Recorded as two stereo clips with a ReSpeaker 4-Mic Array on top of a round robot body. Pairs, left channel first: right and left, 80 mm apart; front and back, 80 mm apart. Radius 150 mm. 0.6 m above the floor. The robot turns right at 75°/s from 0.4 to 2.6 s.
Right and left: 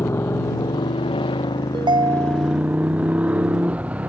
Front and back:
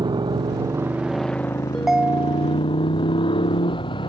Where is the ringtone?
85° left; by 2.6 s 150° left.